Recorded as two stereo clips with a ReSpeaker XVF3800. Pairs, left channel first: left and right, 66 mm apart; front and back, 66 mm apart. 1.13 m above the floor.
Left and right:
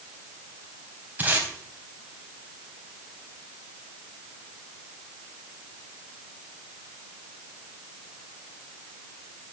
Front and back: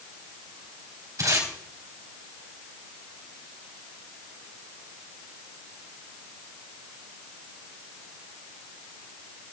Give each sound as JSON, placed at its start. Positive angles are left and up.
{"t": 1.2, "sound": "tape being pulled", "azimuth_deg": -145, "distance_m": 3.5}